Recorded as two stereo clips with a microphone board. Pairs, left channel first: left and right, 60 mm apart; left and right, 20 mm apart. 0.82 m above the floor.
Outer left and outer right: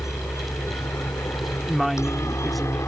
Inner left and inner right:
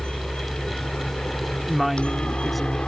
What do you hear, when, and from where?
0.0 s a helicopter: 65° left (ahead or behind); by 2.9 s 60° left (ahead or behind)
1.7 s a woman speaking: centre (ahead or behind)